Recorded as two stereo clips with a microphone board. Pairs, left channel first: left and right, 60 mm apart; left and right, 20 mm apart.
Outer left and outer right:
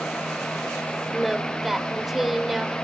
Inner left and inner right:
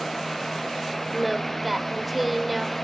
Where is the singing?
5° right (ahead or behind), 0.8 m.